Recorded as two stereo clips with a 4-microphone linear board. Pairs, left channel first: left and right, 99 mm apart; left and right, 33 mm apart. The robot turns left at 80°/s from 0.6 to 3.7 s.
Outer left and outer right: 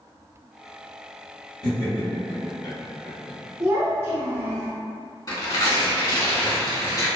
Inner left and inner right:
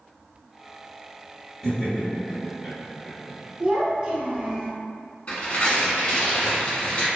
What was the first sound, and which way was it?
Laughter, centre (ahead or behind).